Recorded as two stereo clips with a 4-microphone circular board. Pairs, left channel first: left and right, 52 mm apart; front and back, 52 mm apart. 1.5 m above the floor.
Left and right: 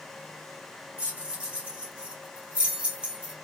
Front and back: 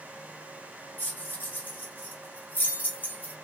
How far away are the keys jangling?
About 0.9 m.